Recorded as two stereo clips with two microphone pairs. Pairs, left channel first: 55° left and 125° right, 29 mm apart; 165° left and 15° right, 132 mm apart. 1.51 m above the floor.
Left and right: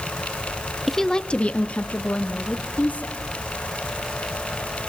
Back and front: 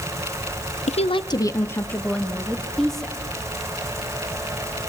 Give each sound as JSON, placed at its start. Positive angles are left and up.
{"t": 0.9, "sound": "a woman speaking", "azimuth_deg": 145, "distance_m": 0.8}